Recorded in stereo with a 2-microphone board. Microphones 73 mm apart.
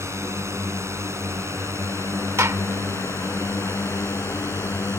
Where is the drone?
40° right (ahead or behind); by 5.0 s 35° right (ahead or behind).